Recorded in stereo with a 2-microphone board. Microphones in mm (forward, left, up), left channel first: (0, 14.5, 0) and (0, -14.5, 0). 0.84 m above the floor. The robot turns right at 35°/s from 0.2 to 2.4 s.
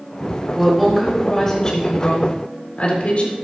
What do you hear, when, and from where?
0.5 s a woman speaking: 15° right, 4 m; by 3.4 s 50° left, 4 m